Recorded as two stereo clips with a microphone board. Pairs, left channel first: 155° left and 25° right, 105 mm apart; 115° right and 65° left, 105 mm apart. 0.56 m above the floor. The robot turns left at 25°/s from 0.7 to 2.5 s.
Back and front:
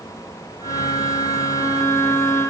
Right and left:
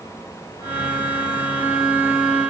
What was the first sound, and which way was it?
Only background noise.